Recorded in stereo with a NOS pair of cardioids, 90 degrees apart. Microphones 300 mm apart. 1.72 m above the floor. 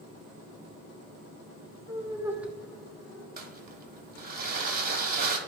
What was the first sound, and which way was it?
Laughter, 10° right.